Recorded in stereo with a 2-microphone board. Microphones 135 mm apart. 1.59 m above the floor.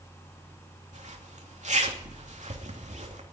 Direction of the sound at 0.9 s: 60° right (ahead or behind).